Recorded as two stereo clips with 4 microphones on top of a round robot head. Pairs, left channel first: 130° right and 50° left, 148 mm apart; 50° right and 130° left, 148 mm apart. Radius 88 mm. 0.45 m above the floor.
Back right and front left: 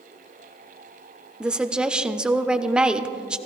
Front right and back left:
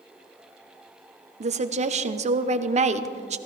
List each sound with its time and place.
1.4 s a woman speaking: 135° left, 1.0 m